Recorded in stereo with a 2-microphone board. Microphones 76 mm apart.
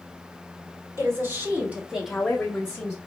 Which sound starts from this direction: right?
A woman speaking, at 1.0 s.